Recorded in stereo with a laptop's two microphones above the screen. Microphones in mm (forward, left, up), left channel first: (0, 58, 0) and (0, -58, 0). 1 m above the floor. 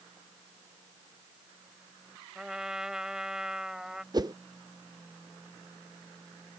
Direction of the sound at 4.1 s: 35° right (ahead or behind).